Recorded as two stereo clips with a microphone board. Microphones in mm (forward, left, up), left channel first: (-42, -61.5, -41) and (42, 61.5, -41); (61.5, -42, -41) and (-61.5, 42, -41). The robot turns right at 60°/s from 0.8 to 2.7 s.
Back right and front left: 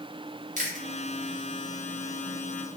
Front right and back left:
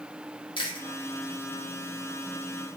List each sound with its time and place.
0.6 s chewing: 25° left, 0.8 m